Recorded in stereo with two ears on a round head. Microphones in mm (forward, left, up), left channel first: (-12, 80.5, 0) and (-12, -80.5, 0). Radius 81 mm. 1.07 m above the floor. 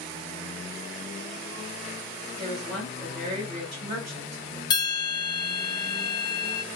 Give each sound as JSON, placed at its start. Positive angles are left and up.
{"t": 2.4, "sound": "a woman speaking", "side_deg": -40, "distance_m": 1.6}
{"t": 4.7, "sound": "a bell", "side_deg": 25, "distance_m": 0.7}